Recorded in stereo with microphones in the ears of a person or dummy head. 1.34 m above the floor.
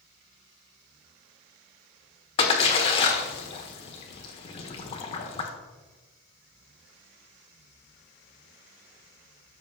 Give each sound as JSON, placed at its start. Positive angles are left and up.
{"t": 2.4, "sound": "a splash", "side_deg": 35, "distance_m": 1.4}